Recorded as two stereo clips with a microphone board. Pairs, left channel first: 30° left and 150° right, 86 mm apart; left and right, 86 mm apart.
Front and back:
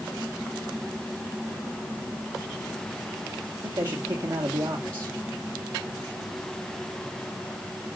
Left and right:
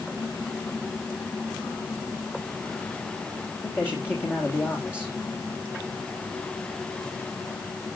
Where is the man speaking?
155° left, 2 m.